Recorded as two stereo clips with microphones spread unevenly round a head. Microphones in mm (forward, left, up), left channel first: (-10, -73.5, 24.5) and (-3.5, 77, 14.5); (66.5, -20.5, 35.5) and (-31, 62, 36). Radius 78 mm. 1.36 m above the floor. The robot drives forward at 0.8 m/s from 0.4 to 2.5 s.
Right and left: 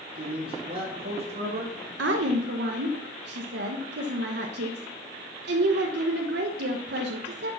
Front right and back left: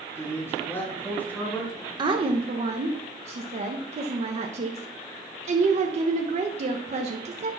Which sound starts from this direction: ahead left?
A man speaking, at 0.1 s.